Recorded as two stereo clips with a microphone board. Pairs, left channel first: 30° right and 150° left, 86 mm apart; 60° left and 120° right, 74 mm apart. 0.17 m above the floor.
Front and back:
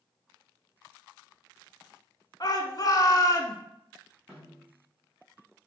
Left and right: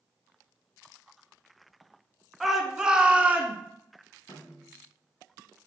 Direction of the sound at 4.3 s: 65° left.